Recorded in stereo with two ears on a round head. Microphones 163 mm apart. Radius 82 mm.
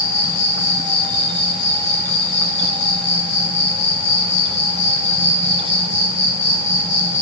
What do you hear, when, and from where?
0.0 s an insect: 40° left (ahead or behind), 1.2 m